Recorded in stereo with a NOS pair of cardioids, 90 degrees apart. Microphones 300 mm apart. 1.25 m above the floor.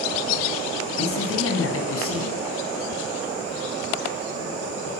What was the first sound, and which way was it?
A man speaking, 45° left.